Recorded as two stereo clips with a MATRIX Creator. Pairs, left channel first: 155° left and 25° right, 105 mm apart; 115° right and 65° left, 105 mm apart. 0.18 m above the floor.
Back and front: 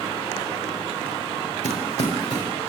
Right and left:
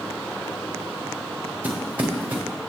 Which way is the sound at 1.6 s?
140° left.